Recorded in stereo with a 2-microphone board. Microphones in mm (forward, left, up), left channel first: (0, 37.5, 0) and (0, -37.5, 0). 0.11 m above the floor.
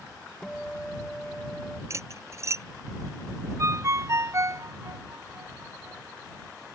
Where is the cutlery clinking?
40° right (ahead or behind).